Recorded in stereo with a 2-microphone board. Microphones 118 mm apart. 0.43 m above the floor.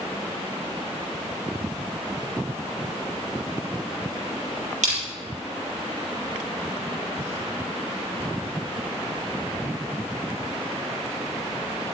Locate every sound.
4.8 s crushing: 80° right, 4.5 m